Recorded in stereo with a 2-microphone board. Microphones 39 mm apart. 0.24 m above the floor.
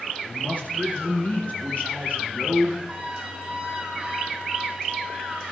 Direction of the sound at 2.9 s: 15° right (ahead or behind).